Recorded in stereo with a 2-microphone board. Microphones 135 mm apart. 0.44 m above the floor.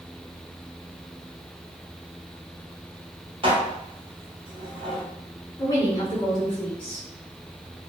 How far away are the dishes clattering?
About 0.9 m.